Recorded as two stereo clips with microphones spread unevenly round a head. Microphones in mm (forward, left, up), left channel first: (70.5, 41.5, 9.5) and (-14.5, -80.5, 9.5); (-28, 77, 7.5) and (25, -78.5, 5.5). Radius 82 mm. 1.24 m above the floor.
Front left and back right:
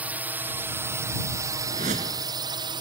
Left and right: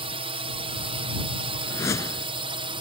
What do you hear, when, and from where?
0.0 s a drone: 55° right; by 2.8 s 100° right
1.7 s a whoosh: 175° right